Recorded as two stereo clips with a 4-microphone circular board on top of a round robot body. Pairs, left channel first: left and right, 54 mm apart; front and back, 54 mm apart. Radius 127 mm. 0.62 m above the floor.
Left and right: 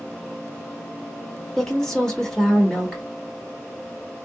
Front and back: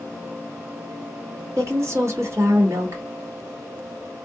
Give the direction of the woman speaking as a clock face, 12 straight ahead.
6 o'clock.